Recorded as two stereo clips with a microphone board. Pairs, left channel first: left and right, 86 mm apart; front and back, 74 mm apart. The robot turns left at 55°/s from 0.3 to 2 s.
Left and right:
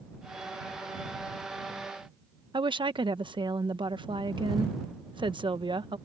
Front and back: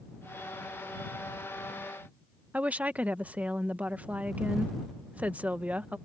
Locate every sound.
2.5 s a woman speaking: 110° right